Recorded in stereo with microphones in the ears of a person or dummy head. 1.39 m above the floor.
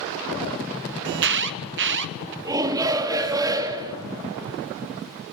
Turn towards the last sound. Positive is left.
turn(degrees=-20)  # may be behind; listen again after turning